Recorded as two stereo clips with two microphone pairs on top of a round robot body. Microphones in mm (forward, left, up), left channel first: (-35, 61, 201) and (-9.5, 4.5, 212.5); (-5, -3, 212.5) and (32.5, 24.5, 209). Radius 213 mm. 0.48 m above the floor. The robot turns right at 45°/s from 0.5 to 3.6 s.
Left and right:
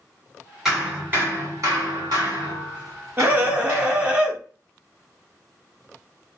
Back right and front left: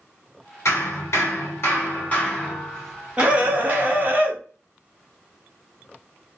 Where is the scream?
10° right, 1.6 m; by 4.4 s 10° left, 1.6 m.